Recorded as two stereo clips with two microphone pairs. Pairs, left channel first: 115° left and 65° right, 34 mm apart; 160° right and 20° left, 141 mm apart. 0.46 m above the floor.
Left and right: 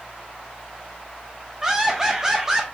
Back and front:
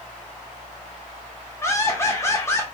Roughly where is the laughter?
Right.